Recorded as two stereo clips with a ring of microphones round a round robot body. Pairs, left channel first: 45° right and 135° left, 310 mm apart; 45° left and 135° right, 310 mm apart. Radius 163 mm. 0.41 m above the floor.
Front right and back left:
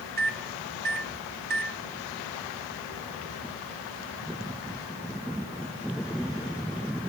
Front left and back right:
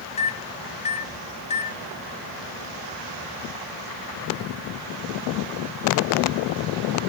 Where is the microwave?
100° left, 1.1 m.